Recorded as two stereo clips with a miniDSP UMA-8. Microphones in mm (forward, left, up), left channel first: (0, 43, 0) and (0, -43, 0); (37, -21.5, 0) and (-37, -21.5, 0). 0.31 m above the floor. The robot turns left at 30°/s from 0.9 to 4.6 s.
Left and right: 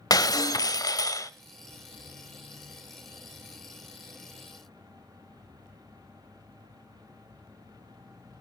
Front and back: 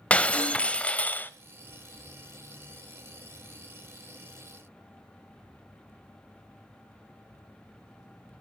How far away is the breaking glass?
About 0.6 m.